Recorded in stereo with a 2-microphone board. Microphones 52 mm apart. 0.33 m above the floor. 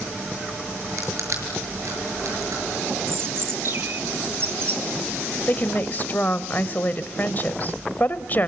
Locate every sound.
1.0 s crushing: 80° right, 6.5 m
3.1 s a bird: 50° right (ahead or behind), 2.5 m
5.5 s a woman speaking: 35° left (ahead or behind), 1.1 m